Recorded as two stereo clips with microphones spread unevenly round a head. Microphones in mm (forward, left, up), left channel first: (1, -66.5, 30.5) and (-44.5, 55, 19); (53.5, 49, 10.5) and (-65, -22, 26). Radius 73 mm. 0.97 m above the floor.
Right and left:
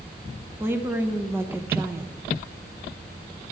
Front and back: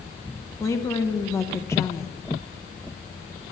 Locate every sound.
0.6 s a woman speaking: 65° left, 0.9 m